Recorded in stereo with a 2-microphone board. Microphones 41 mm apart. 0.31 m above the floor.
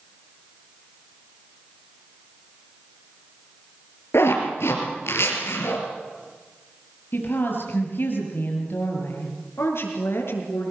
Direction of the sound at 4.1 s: 80° left.